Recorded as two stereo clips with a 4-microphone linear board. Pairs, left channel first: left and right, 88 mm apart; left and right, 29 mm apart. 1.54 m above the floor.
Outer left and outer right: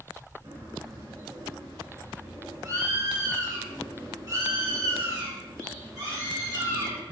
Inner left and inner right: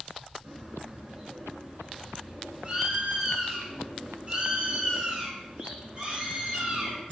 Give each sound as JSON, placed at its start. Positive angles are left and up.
{"t": 0.4, "sound": "a bird", "side_deg": -35, "distance_m": 4.0}